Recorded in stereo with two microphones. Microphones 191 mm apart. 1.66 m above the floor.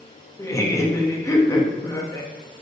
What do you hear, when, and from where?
0.4 s laughter: 15° left (ahead or behind), 0.8 m